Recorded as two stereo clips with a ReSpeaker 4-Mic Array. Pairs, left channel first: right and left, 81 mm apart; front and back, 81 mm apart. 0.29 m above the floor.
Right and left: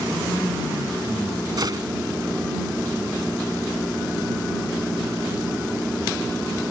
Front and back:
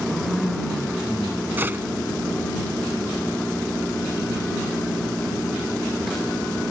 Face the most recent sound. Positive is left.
turn(degrees=115)